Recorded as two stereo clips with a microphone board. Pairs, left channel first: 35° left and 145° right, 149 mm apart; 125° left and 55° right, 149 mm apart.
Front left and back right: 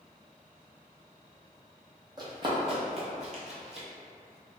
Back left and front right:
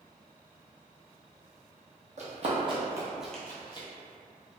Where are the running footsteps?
85° right, 1.1 m; by 3.9 s 175° left, 0.8 m.